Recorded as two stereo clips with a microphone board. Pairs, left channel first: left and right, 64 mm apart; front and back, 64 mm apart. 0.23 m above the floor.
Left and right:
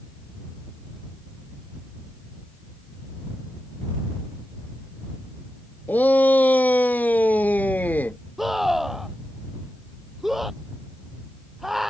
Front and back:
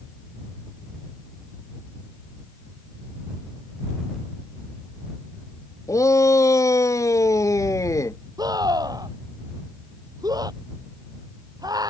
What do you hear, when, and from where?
5.9 s a shout: 30° left
8.4 s a scream: 175° right